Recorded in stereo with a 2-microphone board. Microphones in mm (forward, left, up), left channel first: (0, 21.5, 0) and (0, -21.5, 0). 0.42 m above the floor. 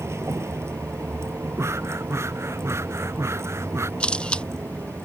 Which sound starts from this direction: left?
A camera shutter, at 4.0 s.